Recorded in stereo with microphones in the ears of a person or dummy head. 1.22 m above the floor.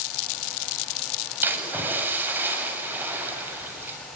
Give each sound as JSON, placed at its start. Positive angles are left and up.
{"t": 1.4, "sound": "a splash", "side_deg": -10, "distance_m": 7.5}